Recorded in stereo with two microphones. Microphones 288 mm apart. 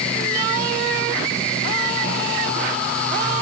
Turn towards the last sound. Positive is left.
No sound to turn to.